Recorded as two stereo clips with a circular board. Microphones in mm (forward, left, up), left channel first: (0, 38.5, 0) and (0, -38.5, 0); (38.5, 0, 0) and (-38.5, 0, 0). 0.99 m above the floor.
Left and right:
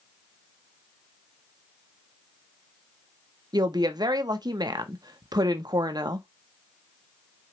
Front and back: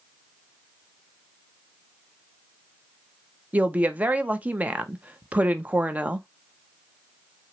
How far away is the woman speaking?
About 0.7 m.